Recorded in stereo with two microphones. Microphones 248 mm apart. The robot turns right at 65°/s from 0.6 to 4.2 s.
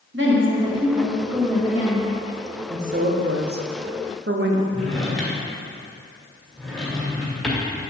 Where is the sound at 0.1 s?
50° right, 1.5 m; by 2.1 s 45° left, 1.5 m.